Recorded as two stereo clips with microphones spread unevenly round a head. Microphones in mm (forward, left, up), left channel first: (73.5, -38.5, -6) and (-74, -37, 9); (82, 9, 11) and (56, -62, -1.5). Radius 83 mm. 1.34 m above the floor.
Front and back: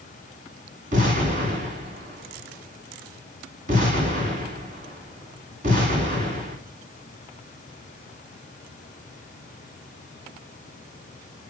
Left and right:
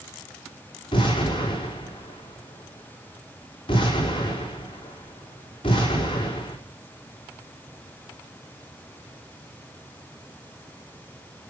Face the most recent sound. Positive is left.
turn(degrees=125)